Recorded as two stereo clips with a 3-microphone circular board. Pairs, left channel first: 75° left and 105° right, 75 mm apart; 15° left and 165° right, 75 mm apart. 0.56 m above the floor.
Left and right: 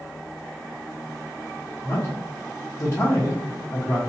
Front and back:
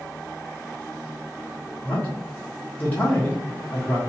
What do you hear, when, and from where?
1.8 s a man speaking: 70° left, 1.1 m